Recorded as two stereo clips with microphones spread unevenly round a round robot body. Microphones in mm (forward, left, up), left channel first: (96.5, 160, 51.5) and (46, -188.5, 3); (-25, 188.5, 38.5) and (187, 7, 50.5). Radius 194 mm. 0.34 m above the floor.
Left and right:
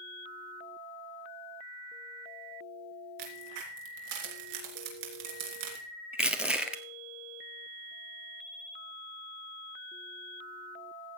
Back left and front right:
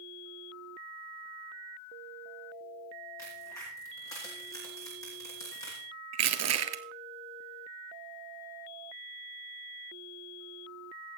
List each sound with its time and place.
3.2 s a crack: 140° right, 3 m
6.1 s crushing: 10° right, 1.5 m